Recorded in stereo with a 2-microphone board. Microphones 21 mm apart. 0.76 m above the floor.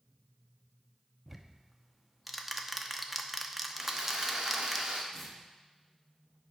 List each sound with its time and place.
1.3 s ticking: 10° right (ahead or behind), 0.7 m
3.8 s sawing: 50° right (ahead or behind), 1.4 m
5.1 s tearing paper: 5° right (ahead or behind), 1.4 m